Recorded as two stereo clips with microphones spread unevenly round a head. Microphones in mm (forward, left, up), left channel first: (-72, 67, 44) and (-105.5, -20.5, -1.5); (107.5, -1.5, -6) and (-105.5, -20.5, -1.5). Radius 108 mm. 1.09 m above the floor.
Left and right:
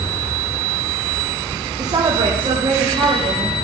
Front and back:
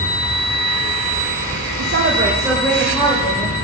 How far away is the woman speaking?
About 0.9 m.